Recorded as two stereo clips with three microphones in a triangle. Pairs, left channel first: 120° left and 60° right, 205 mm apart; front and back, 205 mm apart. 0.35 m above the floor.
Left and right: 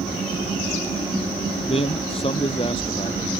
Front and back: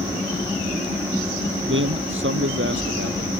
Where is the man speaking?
Straight behind; by 3.4 s 175° right.